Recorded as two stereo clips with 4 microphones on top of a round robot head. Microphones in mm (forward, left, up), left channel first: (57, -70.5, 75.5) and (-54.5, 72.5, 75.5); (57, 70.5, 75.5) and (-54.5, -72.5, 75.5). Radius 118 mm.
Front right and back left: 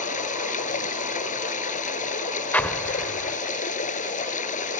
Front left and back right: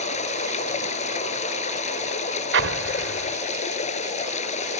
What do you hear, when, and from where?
0.0 s running water: straight ahead
2.5 s an explosion: 135° right